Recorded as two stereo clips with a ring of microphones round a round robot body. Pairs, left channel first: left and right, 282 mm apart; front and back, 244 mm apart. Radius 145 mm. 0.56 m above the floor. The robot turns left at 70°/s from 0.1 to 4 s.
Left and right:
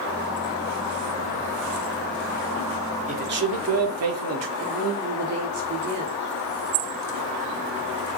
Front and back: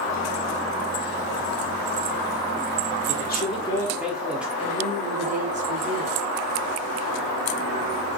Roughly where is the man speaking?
Ahead right.